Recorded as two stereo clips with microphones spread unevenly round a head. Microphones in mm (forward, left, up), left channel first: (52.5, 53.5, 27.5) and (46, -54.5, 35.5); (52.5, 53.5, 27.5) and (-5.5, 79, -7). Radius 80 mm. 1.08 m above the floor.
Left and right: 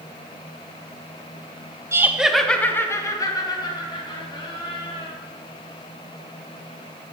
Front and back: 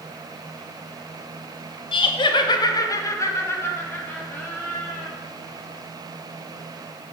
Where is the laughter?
30° right, 0.8 m; by 5.1 s 50° left, 2.5 m.